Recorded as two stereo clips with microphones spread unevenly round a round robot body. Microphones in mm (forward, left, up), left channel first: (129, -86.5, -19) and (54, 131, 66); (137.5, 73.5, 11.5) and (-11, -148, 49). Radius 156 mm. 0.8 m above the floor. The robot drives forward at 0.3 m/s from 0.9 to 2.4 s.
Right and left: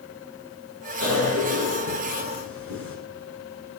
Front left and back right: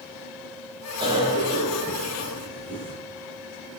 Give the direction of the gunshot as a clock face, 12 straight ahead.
No gunshot in this recording.